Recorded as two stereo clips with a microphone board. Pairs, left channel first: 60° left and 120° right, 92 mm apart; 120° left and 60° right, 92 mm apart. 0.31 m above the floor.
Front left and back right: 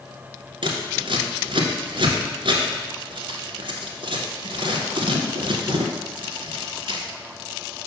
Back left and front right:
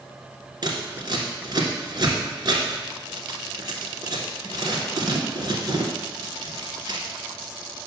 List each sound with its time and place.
0.6 s scissors: 100° right, 1.3 m